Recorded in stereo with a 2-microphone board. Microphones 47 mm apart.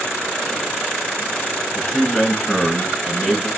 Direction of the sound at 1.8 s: Centre (ahead or behind).